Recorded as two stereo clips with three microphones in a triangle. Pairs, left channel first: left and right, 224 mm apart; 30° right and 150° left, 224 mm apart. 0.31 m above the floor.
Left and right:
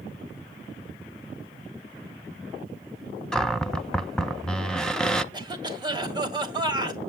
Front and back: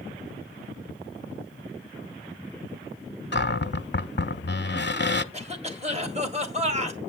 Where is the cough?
155° right, 2 m.